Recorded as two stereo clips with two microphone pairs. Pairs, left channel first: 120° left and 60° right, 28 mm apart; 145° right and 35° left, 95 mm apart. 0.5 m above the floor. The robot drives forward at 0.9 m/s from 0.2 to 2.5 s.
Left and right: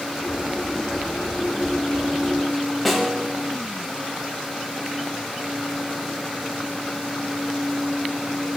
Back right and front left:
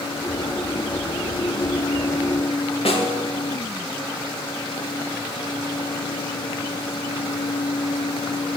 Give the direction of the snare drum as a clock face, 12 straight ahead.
5 o'clock.